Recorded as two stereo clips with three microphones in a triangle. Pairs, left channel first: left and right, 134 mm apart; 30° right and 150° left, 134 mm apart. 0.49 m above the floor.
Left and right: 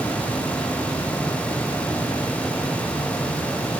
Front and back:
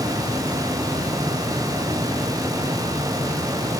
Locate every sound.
Only background noise.